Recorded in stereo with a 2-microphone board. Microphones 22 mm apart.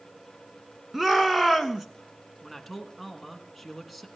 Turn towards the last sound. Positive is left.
turn(degrees=0)  # may be behind; listen again after turning